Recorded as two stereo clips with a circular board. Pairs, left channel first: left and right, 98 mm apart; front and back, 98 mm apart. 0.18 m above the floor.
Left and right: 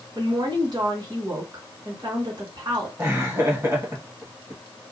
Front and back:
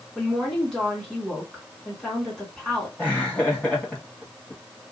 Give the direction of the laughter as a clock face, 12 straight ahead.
2 o'clock.